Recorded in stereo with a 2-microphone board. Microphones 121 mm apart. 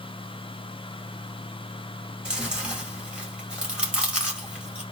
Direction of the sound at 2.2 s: 5° right (ahead or behind).